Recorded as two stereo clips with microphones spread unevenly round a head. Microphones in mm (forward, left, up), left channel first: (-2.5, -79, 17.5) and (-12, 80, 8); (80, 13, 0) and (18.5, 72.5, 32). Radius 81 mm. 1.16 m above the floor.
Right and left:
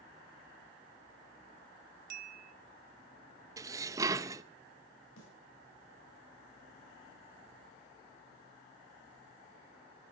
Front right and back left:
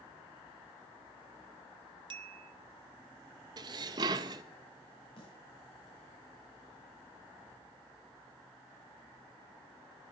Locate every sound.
2.1 s a bell: 130° left, 0.9 m
3.6 s dishes clattering: 165° left, 0.6 m
5.2 s a snare drum: 85° right, 7 m